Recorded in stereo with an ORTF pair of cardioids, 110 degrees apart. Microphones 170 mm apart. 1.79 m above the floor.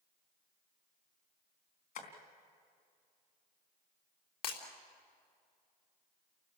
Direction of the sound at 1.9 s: 55° left.